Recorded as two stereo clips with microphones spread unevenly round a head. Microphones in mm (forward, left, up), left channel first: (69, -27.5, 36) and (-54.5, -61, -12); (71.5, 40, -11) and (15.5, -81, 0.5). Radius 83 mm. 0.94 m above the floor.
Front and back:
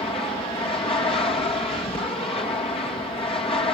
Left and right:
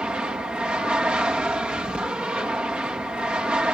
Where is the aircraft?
35° right.